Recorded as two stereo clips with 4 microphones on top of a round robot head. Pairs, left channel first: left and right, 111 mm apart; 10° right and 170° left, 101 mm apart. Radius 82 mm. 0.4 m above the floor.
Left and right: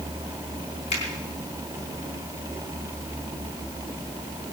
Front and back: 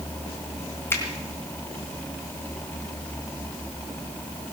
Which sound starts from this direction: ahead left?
A finger snap, at 0.9 s.